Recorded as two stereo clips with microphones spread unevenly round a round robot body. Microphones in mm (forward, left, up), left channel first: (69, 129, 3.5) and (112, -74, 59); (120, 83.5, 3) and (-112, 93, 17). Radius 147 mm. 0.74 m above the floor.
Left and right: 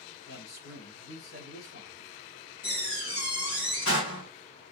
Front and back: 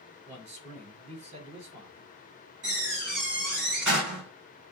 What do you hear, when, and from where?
0.3 s a man speaking: 120° left, 6 m
2.6 s a door slam: 140° left, 5 m